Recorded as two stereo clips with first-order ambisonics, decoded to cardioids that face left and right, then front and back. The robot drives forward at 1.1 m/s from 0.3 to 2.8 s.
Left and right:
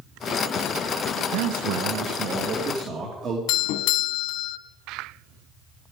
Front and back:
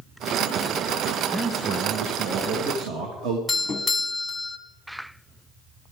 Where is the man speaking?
90° right, 0.9 m; by 3.4 s 150° right, 1.8 m.